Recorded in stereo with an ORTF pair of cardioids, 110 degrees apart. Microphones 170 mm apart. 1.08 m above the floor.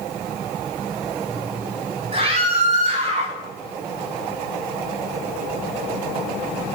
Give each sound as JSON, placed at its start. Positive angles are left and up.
{"t": 2.1, "sound": "a scream", "azimuth_deg": -35, "distance_m": 4.0}